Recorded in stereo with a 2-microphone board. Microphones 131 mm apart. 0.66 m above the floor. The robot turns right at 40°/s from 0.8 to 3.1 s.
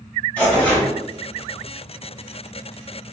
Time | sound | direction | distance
0.4 | tearing paper | 10° left (ahead or behind) | 1.6 m